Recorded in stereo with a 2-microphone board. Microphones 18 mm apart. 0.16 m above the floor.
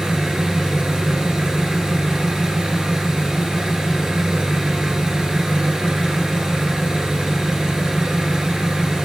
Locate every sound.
0.0 s an engine running: 60° right (ahead or behind), 1.6 m